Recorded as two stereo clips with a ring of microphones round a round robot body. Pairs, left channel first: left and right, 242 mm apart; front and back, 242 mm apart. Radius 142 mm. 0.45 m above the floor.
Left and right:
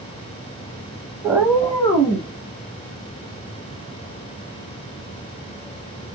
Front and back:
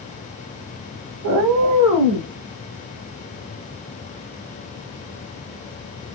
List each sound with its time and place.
1.2 s a cat meowing: 165° right, 0.6 m; by 2.3 s 150° left, 1.3 m